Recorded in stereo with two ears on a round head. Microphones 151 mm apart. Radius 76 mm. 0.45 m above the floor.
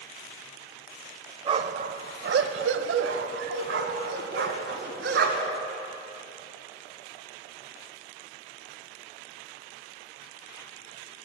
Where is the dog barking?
30° right (ahead or behind), 0.7 m; by 5.6 s 70° right (ahead or behind), 2.5 m.